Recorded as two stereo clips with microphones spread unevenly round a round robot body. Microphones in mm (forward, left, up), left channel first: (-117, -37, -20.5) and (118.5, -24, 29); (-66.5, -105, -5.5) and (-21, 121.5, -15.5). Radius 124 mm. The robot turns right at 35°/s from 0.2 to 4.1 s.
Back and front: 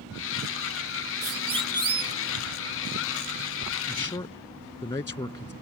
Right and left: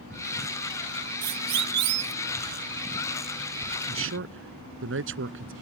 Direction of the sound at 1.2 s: 60° left.